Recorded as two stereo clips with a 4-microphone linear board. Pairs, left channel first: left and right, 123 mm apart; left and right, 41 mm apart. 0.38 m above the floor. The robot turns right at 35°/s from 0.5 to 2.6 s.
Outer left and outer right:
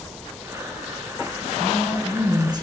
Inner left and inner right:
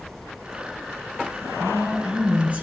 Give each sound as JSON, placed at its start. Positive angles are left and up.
{"t": 1.6, "sound": "a woman speaking", "azimuth_deg": 180, "distance_m": 4.5}